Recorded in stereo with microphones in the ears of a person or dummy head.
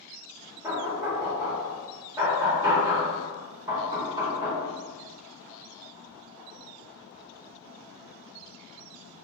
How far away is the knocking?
About 1.1 m.